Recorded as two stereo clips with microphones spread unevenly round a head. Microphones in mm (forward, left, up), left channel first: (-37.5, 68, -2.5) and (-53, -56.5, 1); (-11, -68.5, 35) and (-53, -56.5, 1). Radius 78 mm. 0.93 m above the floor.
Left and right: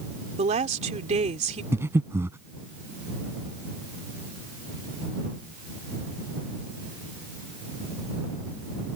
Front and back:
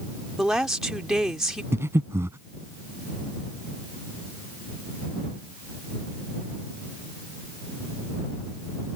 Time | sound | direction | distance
0.4 | a woman speaking | 125° right | ?
1.7 | breathing | 165° right | ?